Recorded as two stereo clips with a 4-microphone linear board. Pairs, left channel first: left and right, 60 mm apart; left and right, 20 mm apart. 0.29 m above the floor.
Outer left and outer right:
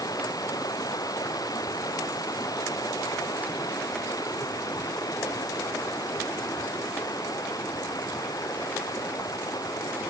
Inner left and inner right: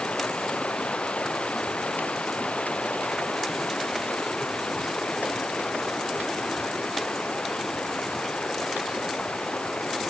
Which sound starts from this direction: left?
Running water, at 0.0 s.